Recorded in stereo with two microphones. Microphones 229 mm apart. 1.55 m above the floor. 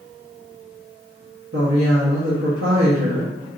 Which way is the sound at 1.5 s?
75° right (ahead or behind).